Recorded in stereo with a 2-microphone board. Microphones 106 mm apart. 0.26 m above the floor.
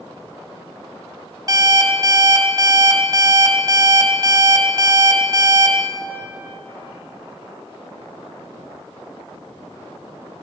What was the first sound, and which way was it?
An alarm clock, 40° right (ahead or behind).